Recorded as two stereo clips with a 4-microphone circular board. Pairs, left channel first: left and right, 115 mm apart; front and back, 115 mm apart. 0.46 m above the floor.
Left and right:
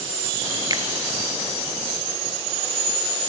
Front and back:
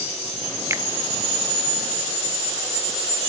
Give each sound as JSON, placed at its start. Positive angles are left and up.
{"t": 0.7, "sound": "a finger snap", "azimuth_deg": -125, "distance_m": 0.9}